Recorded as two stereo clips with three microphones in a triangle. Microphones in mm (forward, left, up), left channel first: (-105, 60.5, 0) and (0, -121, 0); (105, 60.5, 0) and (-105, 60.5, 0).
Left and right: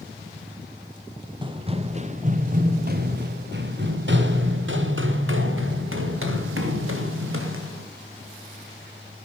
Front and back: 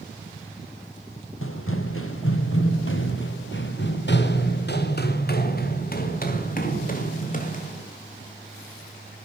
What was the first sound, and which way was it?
Running footsteps, 5° left.